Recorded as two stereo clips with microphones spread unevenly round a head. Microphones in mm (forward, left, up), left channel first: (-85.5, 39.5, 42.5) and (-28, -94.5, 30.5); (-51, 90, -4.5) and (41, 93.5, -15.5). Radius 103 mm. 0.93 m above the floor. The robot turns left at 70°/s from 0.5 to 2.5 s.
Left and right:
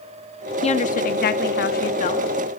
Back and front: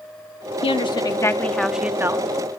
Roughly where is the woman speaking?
Behind.